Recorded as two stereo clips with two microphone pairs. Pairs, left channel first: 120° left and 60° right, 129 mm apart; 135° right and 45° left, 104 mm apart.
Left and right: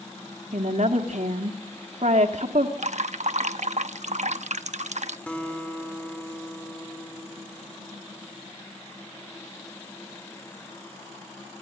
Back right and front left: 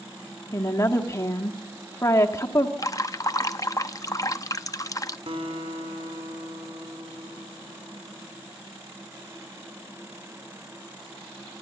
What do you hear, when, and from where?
0.5 s a woman speaking: 75° right, 1.6 m
2.8 s dripping: 80° right, 0.7 m
5.3 s a guitar: 40° left, 3 m